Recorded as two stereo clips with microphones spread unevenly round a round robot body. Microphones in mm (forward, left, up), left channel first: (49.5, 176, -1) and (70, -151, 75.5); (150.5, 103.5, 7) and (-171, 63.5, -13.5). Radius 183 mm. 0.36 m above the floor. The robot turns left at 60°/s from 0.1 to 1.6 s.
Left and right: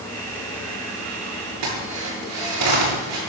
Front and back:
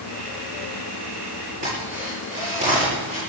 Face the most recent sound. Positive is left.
turn(degrees=-105)